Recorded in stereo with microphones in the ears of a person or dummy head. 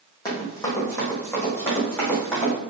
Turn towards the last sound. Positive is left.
turn(degrees=10)  # may be behind; listen again after turning